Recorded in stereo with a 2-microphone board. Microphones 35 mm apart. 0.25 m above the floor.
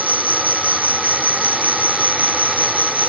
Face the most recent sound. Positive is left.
turn(degrees=-55)  # may be behind; listen again after turning